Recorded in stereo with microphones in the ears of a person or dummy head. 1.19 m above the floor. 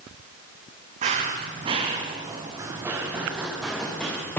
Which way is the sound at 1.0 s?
40° right (ahead or behind).